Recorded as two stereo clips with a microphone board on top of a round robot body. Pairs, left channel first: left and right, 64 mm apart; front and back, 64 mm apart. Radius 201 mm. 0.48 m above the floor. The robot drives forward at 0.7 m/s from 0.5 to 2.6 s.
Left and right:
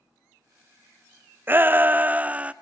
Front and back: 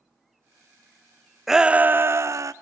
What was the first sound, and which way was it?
A shout, 95° right.